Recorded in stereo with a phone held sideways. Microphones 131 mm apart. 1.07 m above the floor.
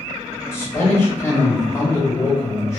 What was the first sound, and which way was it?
A man speaking, 20° left (ahead or behind).